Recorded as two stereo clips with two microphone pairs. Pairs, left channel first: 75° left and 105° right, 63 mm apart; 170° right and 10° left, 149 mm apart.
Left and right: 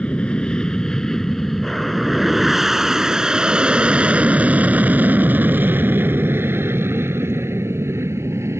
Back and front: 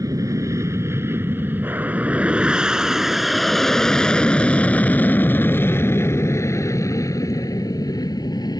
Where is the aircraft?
30° left; by 8.6 s 115° right.